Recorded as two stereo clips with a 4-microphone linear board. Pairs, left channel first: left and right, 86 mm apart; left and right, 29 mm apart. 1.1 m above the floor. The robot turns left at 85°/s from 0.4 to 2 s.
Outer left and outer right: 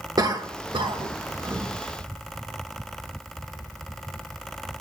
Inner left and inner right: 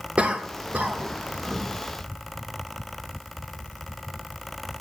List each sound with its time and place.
0.2 s a cough: 45° right (ahead or behind), 1.4 m; by 1.7 s 20° right (ahead or behind), 1.4 m